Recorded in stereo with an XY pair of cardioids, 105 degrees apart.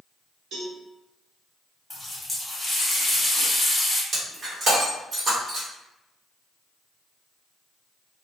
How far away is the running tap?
About 1.1 m.